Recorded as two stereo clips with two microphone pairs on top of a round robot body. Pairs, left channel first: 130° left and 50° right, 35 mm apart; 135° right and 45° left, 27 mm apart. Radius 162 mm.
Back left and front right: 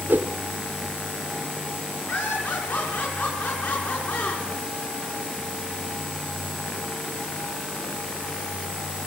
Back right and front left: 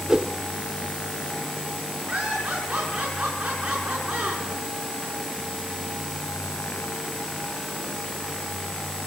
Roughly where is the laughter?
Left.